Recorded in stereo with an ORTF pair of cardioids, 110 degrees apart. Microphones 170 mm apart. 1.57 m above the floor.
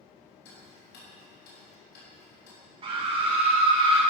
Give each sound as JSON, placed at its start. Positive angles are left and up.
{"t": 0.5, "sound": "ticking", "azimuth_deg": 65, "distance_m": 3.5}
{"t": 2.8, "sound": "a scream", "azimuth_deg": -30, "distance_m": 3.0}